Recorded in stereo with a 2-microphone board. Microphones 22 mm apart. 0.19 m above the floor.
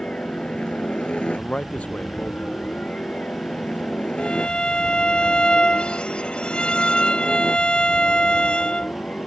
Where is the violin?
45° left (ahead or behind).